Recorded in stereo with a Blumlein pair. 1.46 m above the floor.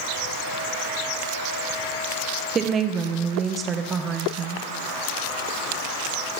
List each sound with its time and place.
2.5 s a woman speaking: 20° right, 0.8 m